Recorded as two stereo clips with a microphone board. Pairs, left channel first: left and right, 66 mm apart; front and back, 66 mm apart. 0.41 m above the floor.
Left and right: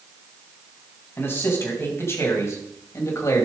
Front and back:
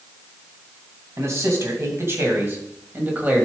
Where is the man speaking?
140° left, 3 m; by 3.5 s 115° left, 2.5 m.